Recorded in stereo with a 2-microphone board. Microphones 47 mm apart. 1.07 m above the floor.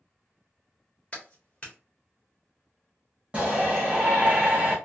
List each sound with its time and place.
1.1 s a clap: 20° left (ahead or behind), 1.3 m
3.3 s a shout: 30° right (ahead or behind), 1.3 m